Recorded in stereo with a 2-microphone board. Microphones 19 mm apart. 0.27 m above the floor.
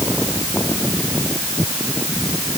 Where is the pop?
I don't hear a pop.